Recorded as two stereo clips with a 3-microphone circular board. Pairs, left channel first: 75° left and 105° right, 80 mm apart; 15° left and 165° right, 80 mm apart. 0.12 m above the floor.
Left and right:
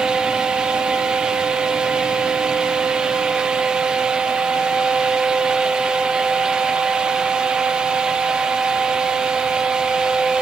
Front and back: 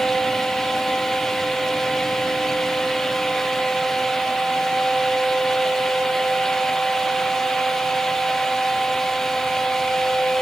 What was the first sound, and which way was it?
Only background noise.